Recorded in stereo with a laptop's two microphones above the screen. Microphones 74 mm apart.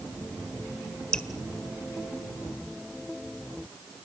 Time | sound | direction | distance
1.1 | dripping | 15° left (ahead or behind) | 1.4 m